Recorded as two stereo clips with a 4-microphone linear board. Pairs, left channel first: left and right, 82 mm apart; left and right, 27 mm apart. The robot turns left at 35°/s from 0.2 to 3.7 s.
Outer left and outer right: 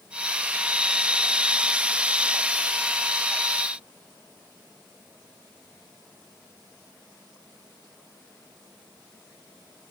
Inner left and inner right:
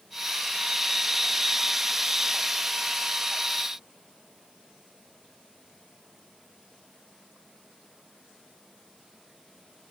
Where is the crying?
No crying in this recording.